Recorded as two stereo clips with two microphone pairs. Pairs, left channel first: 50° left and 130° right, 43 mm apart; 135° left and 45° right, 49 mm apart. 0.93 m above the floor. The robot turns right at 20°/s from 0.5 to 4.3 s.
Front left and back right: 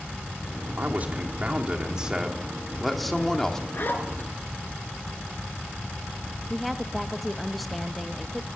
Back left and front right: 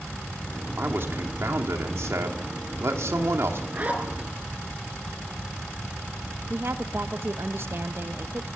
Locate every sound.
0.8 s a man speaking: 85° right, 2.5 m; by 3.6 s 25° right, 2.5 m
3.7 s a zipper: 5° left, 3.5 m; by 4.3 s 15° left, 3.5 m
6.5 s a woman speaking: 40° right, 1.0 m